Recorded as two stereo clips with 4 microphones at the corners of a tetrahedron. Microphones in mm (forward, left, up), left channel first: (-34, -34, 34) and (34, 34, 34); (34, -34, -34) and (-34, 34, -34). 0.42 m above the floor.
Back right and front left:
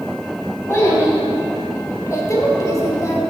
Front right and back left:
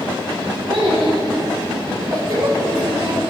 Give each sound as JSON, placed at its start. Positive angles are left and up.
{"t": 0.7, "sound": "a child speaking", "azimuth_deg": 165, "distance_m": 2.5}